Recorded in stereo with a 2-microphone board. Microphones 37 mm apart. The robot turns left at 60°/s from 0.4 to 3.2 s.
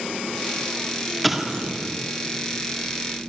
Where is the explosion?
Centre (ahead or behind), 1.7 m; by 1.9 s 40° right (ahead or behind), 1.7 m.